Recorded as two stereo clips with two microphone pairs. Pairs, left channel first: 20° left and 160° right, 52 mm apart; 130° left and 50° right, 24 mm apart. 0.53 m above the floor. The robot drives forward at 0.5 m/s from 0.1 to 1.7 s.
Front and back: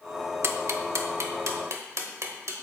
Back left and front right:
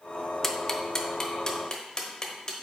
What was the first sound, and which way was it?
Ticking, 145° right.